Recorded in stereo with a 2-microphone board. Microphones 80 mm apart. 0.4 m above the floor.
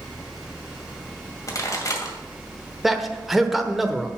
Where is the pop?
45° left (ahead or behind), 2 m.